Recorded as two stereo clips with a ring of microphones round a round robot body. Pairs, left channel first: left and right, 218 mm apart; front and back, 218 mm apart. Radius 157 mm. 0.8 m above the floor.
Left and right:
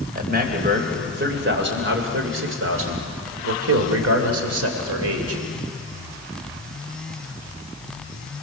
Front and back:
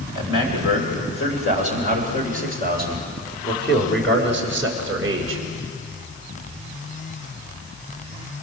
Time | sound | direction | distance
0.1 | a man speaking | 40° right | 4 m